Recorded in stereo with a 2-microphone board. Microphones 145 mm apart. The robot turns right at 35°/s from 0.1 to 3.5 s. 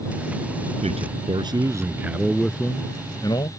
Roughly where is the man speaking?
Ahead right.